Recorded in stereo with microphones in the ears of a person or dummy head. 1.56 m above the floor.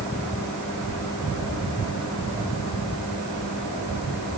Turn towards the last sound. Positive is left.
No sound to turn to.